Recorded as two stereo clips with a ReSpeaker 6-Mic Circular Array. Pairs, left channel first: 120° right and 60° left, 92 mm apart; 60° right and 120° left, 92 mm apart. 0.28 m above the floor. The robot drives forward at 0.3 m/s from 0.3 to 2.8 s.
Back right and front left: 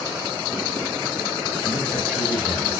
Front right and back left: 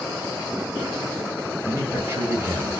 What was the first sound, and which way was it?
A man speaking, 125° left.